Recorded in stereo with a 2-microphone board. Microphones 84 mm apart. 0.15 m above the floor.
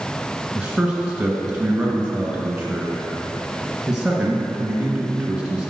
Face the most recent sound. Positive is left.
turn(degrees=-10)  # may be behind; listen again after turning